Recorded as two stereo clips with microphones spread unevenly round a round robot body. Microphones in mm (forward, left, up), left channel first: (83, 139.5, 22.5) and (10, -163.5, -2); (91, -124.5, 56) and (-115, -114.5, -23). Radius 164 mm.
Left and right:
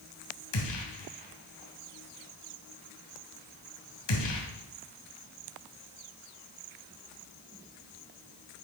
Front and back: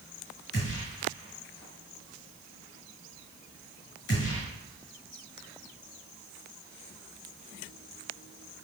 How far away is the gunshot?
About 2.5 m.